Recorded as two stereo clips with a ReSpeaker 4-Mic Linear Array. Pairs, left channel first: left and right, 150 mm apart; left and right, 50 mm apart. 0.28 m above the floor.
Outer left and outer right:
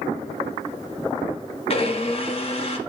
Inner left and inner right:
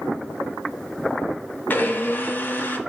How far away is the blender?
About 1.0 m.